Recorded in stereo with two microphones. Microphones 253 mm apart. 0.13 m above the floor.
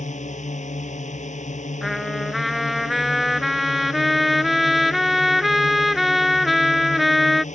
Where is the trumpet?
Centre (ahead or behind).